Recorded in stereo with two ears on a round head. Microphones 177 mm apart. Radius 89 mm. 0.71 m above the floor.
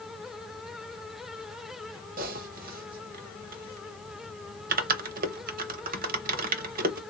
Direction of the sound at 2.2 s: 45° right (ahead or behind).